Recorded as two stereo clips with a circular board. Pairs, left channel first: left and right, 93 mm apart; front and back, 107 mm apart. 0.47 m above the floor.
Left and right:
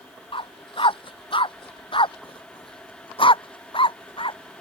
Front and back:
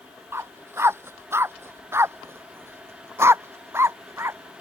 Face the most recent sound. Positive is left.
turn(degrees=115)